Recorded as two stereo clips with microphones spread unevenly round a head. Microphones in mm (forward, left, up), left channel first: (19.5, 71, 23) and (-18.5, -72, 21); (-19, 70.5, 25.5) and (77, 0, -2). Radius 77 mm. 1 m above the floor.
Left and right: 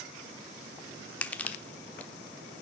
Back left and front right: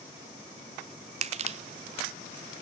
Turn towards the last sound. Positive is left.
turn(degrees=-5)